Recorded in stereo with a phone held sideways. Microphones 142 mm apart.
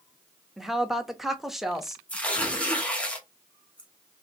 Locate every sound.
0.6 s a woman speaking: centre (ahead or behind), 0.7 m
2.1 s tearing paper: 10° left (ahead or behind), 0.9 m